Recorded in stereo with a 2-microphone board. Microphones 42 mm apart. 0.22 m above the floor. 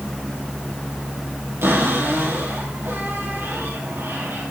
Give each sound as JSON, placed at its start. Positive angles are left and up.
{"t": 1.6, "sound": "a cupboard door", "side_deg": -75, "distance_m": 5.5}